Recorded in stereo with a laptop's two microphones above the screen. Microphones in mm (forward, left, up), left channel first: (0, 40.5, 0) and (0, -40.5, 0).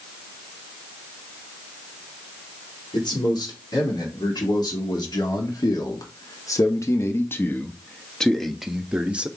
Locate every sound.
2.9 s a man speaking: 80° left, 3 m; by 9.3 s 20° right (ahead or behind), 1.3 m